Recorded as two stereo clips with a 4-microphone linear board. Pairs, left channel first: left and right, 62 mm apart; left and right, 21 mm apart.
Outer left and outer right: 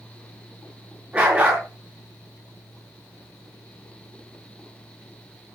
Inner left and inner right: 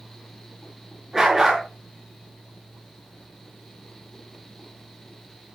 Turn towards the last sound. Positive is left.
turn(degrees=-20)  # may be behind; listen again after turning